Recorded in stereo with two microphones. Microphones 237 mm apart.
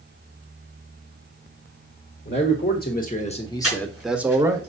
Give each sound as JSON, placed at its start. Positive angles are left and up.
{"t": 2.2, "sound": "a man speaking", "side_deg": 45, "distance_m": 1.4}
{"t": 3.6, "sound": "breathing", "side_deg": 75, "distance_m": 4.0}